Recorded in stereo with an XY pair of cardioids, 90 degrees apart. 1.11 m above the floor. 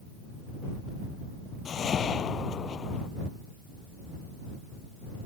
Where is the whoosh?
60° left.